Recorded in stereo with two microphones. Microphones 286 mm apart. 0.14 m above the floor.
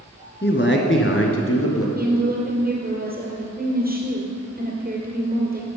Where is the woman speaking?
35° right (ahead or behind), 2.5 m.